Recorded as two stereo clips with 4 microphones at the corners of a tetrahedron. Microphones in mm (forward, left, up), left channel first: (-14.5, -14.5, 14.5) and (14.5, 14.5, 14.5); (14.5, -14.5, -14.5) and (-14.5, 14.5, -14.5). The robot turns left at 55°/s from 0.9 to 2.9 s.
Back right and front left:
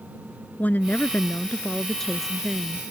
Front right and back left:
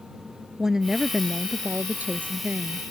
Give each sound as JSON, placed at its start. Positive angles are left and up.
{"t": 0.6, "sound": "a woman speaking", "azimuth_deg": -150}